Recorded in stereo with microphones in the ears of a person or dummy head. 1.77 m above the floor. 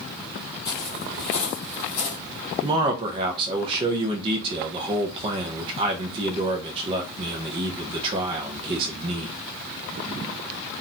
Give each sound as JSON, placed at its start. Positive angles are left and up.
{"t": 0.7, "sound": "footsteps", "side_deg": 20, "distance_m": 2.5}
{"t": 2.6, "sound": "a man speaking", "side_deg": -30, "distance_m": 0.5}